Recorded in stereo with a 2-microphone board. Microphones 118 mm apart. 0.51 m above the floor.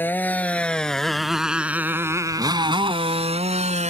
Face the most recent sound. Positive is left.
turn(degrees=-75)  # may be behind; listen again after turning